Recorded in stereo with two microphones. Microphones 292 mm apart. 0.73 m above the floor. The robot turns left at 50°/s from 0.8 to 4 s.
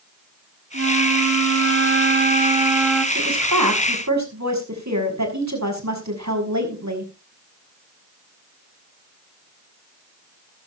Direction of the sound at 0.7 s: 75° right.